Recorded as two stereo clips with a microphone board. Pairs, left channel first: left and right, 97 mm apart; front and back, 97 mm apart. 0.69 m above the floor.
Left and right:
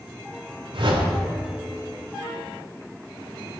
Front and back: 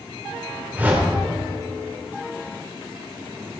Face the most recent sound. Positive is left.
turn(degrees=-110)